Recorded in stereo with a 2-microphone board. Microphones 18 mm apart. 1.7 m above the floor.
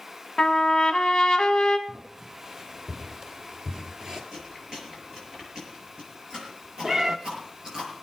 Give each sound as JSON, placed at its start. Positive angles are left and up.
{"t": 0.4, "sound": "a trumpet", "side_deg": 40, "distance_m": 1.9}
{"t": 1.9, "sound": "footsteps", "side_deg": -35, "distance_m": 3.5}
{"t": 4.3, "sound": "chewing", "side_deg": -40, "distance_m": 6.0}
{"t": 6.8, "sound": "a cat meowing", "side_deg": -25, "distance_m": 1.0}